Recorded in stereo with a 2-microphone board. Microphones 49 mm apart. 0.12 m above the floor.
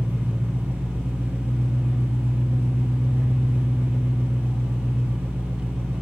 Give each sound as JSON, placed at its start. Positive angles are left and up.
{"t": 0.0, "sound": "an engine running", "side_deg": -50, "distance_m": 1.4}